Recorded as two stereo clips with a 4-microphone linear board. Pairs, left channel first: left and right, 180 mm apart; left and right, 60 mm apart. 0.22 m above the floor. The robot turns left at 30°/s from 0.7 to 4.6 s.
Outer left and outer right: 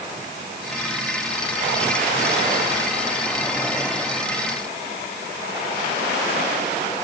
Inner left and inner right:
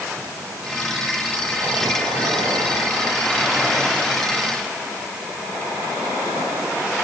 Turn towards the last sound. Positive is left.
No sound to turn to.